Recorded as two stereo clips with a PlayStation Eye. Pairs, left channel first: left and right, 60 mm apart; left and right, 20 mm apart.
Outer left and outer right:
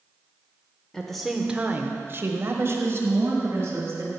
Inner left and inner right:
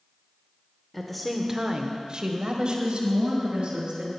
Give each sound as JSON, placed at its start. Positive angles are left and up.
{"t": 0.9, "sound": "a woman speaking", "side_deg": 10, "distance_m": 1.1}